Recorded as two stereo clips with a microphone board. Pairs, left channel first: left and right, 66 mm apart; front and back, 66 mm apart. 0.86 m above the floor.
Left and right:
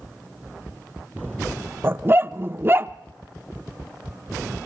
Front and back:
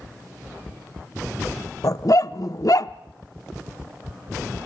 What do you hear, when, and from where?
1.8 s a dog barking: 30° right, 0.7 m